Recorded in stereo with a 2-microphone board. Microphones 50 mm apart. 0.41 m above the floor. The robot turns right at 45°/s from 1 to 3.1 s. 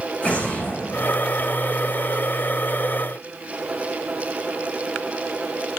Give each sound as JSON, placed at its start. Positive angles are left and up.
{"t": 0.2, "sound": "an explosion", "side_deg": 30, "distance_m": 8.5}